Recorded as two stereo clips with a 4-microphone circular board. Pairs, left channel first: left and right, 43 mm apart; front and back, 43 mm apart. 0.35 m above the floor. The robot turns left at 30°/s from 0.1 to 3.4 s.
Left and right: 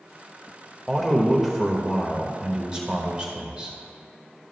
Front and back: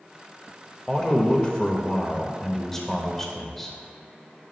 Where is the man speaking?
5° left, 0.9 m; by 3.8 s 70° right, 0.9 m.